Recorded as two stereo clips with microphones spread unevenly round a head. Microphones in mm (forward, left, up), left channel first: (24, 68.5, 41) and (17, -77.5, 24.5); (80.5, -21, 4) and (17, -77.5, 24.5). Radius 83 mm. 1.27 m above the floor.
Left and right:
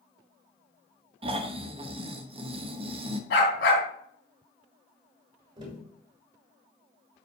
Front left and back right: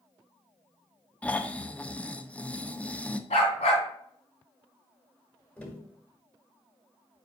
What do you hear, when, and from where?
1.2 s snoring: 40° right, 0.9 m
3.3 s a dog barking: 80° left, 3 m
5.6 s tapping: 35° right, 5 m